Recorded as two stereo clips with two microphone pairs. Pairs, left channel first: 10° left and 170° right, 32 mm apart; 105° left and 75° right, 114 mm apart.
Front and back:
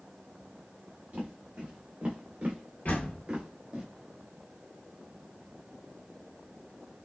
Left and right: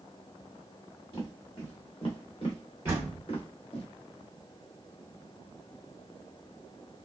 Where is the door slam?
5° right, 1.8 m.